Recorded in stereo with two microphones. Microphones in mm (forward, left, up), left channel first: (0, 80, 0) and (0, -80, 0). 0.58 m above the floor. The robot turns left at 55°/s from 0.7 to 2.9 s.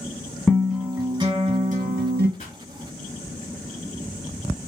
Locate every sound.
0.5 s a guitar: straight ahead, 2 m; by 2.3 s 85° right, 2 m
2.4 s a pop: 40° left (ahead or behind), 1.8 m; by 2.6 s 35° left (ahead or behind), 1.8 m